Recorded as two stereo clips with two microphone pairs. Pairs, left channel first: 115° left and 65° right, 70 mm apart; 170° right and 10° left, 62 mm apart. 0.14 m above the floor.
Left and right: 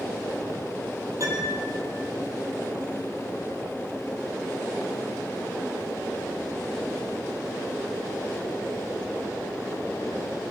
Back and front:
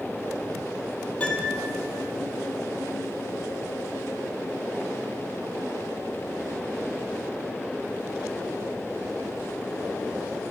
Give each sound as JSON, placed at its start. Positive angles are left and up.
{"t": 1.2, "sound": "a piano", "azimuth_deg": -105, "distance_m": 5.0}